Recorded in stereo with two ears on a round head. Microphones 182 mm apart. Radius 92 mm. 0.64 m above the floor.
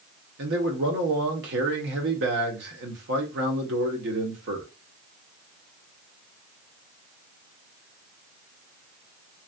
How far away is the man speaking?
About 1.2 m.